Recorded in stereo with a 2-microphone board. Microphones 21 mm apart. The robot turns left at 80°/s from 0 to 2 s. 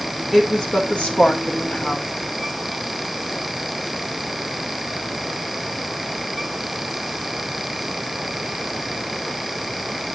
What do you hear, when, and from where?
0.3 s a woman speaking: 170° left, 2.0 m; by 2.1 s 35° left, 2.0 m